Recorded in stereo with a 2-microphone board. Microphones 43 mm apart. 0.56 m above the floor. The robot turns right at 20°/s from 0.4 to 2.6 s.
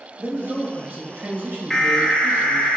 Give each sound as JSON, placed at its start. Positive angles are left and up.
{"t": 0.2, "sound": "a man speaking", "azimuth_deg": -100, "distance_m": 2.0}
{"t": 1.7, "sound": "an alarm", "side_deg": 10, "distance_m": 0.8}